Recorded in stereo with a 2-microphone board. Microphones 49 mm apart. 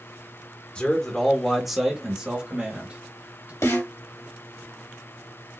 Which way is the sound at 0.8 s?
20° left (ahead or behind).